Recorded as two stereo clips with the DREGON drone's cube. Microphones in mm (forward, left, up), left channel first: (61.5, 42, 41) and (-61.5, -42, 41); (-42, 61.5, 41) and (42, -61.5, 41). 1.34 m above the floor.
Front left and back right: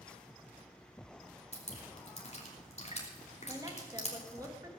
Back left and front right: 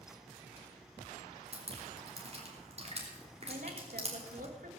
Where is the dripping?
10° right, 3 m.